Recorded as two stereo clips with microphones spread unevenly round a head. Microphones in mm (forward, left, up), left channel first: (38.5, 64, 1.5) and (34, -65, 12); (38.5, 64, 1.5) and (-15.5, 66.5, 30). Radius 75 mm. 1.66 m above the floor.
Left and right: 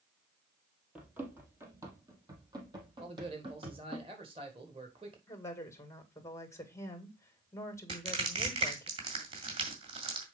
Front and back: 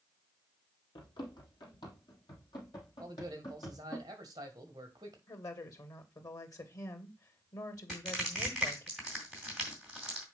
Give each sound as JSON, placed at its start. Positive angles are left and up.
{"t": 0.9, "sound": "running footsteps", "azimuth_deg": -20, "distance_m": 2.5}
{"t": 3.0, "sound": "a man speaking", "azimuth_deg": -150, "distance_m": 1.7}
{"t": 5.3, "sound": "a woman speaking", "azimuth_deg": 20, "distance_m": 2.5}
{"t": 7.9, "sound": "crushing", "azimuth_deg": -120, "distance_m": 2.0}